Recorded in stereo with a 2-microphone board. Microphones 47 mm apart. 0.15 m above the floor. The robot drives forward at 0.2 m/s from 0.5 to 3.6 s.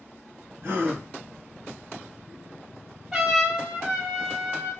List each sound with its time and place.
0.6 s a gasp: 55° right (ahead or behind), 1.2 m; by 1.0 s 60° right (ahead or behind), 1.2 m
3.1 s a trumpet: 10° right (ahead or behind), 1.3 m